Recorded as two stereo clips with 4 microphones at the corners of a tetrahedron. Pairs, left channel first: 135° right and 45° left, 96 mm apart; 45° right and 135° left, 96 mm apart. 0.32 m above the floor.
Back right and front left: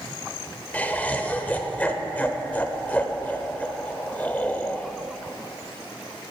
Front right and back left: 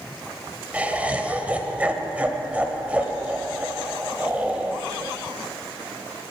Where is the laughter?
Straight behind, 1.0 m.